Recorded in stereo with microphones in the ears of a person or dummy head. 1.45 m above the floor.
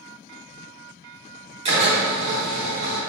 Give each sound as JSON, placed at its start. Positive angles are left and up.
{"t": 1.6, "sound": "a drill", "side_deg": -35, "distance_m": 3.0}